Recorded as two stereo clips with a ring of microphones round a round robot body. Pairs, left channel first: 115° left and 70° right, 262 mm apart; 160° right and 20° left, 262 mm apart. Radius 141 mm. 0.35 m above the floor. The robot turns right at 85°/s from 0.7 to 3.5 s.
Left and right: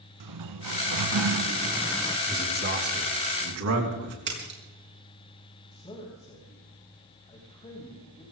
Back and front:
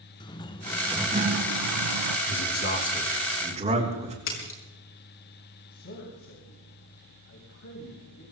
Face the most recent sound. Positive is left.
turn(degrees=180)